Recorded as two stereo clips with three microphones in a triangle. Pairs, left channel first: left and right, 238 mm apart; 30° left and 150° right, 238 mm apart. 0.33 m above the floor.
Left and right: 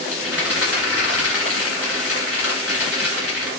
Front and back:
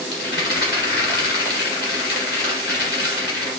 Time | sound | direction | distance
0.1 | a rattle | 75° left | 1.5 m